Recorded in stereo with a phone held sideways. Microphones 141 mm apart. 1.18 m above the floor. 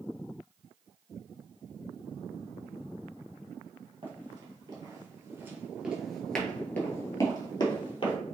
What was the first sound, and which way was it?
Running footsteps, 35° right (ahead or behind).